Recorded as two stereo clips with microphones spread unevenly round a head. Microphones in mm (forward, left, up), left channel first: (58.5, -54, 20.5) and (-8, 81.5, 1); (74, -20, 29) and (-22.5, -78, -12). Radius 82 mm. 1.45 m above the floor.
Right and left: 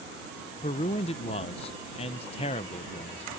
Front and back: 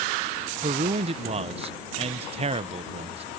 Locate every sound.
0.6 s a man speaking: 105° right